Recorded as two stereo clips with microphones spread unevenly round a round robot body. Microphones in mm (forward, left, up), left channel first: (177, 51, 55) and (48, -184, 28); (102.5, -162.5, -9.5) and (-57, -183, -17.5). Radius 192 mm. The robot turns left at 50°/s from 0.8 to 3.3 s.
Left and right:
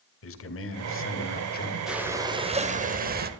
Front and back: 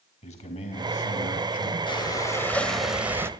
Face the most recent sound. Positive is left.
turn(degrees=-110)